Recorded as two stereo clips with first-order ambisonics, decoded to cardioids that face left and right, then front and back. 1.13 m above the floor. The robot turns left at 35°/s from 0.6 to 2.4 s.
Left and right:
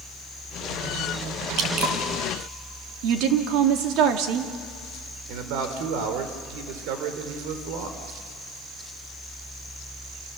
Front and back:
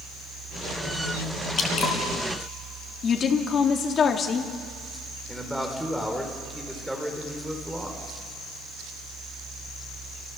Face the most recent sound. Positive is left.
turn(degrees=-95)